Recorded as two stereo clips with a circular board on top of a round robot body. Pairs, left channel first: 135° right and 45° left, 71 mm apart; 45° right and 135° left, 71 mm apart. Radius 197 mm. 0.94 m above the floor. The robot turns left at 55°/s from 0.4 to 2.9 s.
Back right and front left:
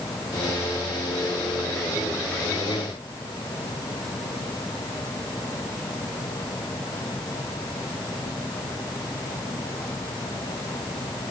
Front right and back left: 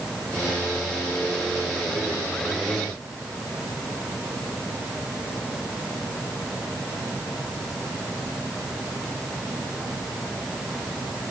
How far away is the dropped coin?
I don't hear a dropped coin.